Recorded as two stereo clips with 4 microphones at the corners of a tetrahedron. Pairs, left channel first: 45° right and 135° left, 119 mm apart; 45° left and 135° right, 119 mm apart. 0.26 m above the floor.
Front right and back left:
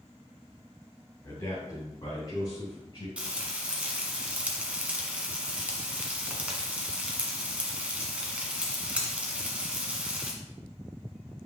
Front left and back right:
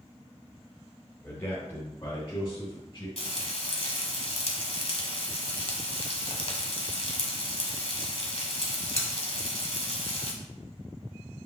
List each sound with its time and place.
1.2 s a man speaking: 15° right, 1.8 m; by 3.1 s 5° right, 3.5 m
3.2 s frying: 60° left, 1.2 m